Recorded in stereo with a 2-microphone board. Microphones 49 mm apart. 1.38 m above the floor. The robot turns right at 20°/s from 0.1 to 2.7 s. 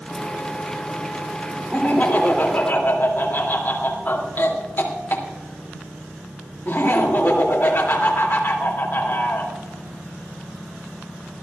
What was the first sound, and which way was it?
Laughter, 25° left (ahead or behind).